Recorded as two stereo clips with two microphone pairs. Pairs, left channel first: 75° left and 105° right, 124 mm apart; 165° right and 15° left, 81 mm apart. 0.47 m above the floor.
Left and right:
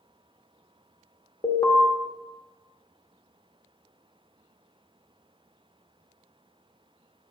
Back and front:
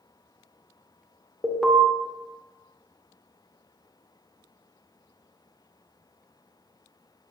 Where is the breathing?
No breathing in this recording.